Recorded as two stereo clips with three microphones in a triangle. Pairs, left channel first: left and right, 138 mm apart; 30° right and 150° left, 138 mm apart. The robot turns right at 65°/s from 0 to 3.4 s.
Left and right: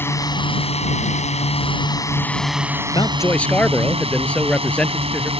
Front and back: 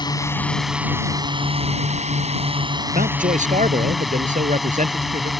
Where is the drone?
20° left; by 5.4 s 120° right.